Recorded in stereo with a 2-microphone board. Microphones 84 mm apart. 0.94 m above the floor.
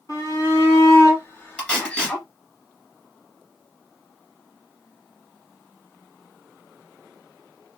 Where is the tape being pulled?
15° left (ahead or behind), 2 m.